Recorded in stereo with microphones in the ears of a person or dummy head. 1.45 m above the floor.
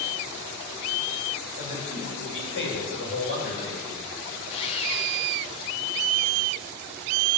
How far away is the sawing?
About 1.4 m.